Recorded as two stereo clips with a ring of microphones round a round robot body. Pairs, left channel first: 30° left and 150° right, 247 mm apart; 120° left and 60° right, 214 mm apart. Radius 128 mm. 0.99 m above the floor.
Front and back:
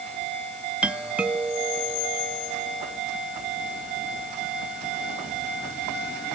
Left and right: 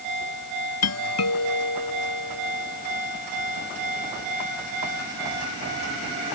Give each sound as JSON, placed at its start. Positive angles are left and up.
{"t": 0.8, "sound": "a doorbell", "azimuth_deg": 125}